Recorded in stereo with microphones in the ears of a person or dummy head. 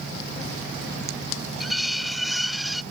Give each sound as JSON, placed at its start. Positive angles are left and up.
{"t": 1.6, "sound": "cutlery clinking", "side_deg": 0}